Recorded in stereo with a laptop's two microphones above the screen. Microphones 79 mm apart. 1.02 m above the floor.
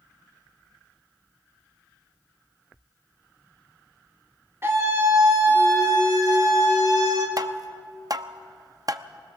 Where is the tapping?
50° right (ahead or behind), 0.7 m.